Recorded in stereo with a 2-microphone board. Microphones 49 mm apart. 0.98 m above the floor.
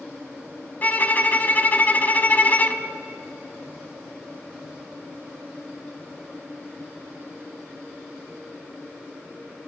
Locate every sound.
0.8 s a violin: 35° left (ahead or behind), 1.2 m